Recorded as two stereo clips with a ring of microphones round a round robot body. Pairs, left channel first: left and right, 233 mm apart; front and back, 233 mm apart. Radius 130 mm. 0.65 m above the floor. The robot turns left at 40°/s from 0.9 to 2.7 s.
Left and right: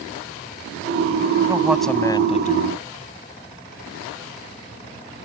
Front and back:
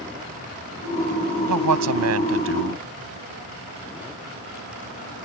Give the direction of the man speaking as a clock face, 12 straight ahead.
6 o'clock.